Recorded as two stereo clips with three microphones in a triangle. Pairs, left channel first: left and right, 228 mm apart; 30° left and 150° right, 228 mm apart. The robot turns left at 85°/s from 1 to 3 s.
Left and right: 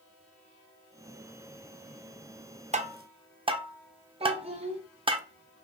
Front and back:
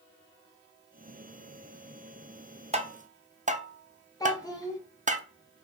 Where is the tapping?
115° right, 0.5 m; by 5.2 s 140° right, 0.5 m.